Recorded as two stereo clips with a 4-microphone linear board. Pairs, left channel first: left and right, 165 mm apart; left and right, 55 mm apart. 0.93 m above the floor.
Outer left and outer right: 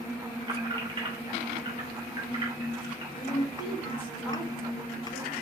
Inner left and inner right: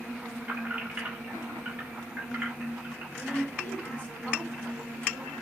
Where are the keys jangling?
30° right (ahead or behind), 1.5 m.